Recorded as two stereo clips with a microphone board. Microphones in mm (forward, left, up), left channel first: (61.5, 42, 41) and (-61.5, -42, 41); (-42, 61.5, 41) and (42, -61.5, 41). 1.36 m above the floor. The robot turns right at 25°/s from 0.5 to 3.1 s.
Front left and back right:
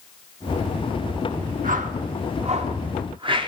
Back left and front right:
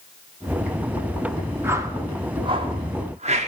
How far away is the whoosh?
About 0.8 m.